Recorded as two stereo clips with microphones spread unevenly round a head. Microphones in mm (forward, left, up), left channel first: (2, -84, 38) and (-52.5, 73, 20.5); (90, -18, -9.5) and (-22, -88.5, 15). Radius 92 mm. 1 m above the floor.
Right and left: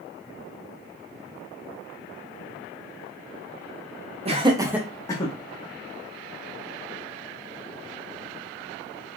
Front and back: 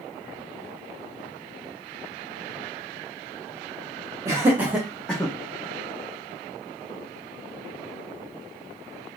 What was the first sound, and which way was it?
Laughter, 135° left.